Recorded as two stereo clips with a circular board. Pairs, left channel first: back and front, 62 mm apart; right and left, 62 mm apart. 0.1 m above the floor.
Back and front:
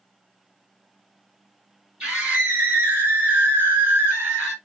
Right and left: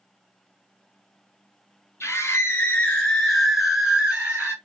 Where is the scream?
60° right, 1.9 m; by 4.5 s 45° left, 1.7 m.